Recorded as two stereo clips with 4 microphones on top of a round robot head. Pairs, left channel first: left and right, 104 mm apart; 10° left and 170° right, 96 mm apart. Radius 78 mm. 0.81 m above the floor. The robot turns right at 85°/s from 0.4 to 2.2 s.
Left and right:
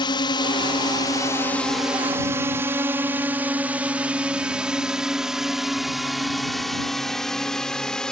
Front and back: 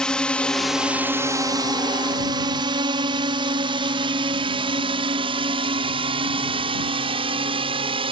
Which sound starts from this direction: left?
A drone, at 0.0 s.